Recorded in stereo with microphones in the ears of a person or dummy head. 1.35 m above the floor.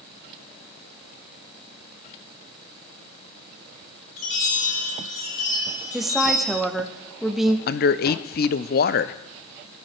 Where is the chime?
40° left (ahead or behind), 5 m.